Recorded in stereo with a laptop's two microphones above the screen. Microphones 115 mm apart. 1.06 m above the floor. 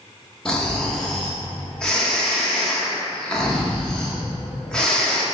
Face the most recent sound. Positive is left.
turn(degrees=5)  # may be behind; listen again after turning